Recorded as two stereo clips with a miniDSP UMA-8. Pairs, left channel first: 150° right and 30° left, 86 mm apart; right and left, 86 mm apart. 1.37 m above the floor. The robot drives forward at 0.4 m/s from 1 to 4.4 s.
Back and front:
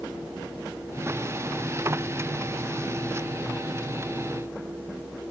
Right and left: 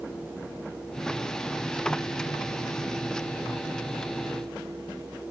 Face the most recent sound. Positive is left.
No sound to turn to.